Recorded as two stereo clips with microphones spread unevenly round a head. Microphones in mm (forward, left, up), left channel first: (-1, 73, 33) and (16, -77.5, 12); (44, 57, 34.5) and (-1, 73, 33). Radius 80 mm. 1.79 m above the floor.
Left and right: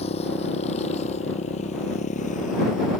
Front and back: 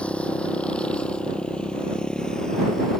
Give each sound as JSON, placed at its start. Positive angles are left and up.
{"t": 0.0, "sound": "a motorcycle", "azimuth_deg": 45}